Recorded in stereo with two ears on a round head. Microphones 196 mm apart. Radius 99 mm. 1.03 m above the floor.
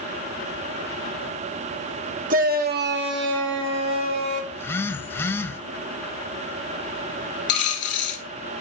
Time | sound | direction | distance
2.3 | a shout | 40° right (ahead or behind) | 1.2 m
4.5 | a phone buzzing | 10° left (ahead or behind) | 0.7 m
7.5 | a dropped coin | 55° left (ahead or behind) | 1.7 m